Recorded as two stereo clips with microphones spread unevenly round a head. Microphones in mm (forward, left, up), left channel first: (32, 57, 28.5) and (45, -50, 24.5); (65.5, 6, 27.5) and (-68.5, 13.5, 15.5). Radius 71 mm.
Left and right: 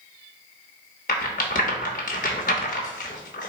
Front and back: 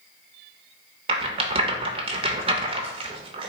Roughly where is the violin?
No violin in this recording.